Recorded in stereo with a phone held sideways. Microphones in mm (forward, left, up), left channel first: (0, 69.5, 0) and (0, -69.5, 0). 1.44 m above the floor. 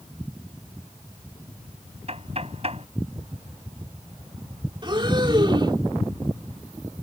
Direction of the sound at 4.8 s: 35° right (ahead or behind).